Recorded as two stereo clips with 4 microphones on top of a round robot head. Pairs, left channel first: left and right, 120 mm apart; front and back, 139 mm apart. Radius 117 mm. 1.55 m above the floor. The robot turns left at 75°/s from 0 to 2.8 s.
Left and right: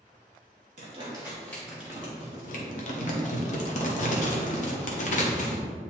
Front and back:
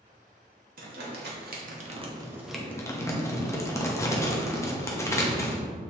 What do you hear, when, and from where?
0.8 s crumpling: 135° right, 1.1 m; by 5.6 s 70° left, 1.1 m